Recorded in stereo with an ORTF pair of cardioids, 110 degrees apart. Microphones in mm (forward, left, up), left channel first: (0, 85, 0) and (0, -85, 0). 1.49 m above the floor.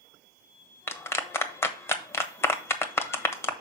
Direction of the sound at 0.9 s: 15° left.